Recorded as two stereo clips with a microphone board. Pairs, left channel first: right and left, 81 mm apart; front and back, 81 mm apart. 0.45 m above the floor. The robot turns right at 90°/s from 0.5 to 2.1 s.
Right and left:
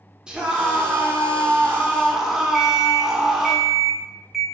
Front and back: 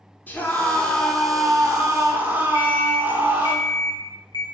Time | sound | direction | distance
0.3 | a scream | 25° left | 0.7 m
2.5 | an alarm clock | 10° left | 0.6 m